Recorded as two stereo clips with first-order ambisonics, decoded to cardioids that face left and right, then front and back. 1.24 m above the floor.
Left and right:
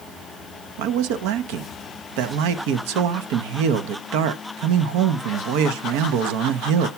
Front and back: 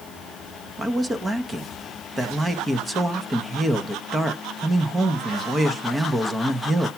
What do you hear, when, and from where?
0.8 s a man speaking: 100° right, 0.8 m